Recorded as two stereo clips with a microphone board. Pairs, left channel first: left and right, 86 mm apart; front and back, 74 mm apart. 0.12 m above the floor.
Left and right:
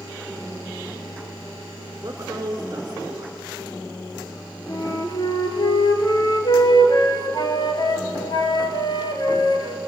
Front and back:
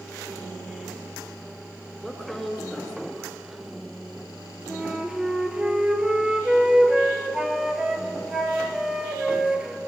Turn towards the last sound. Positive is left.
turn(degrees=100)